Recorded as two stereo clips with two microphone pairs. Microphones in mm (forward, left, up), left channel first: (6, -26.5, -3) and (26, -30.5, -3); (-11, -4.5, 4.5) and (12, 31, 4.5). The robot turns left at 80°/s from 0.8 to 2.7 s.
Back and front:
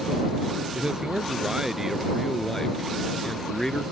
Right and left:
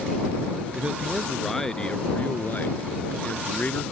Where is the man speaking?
15° left; by 3.9 s 140° right.